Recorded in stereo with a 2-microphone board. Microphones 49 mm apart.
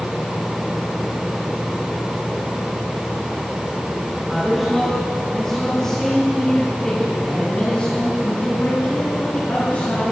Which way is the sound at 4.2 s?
5° right (ahead or behind).